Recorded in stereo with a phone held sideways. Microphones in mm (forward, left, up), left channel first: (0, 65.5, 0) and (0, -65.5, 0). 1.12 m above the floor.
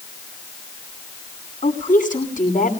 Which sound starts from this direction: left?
A woman speaking, at 1.6 s.